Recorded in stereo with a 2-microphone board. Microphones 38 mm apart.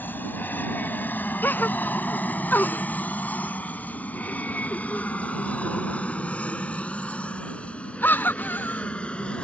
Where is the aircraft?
55° left (ahead or behind); by 9.4 s 30° left (ahead or behind).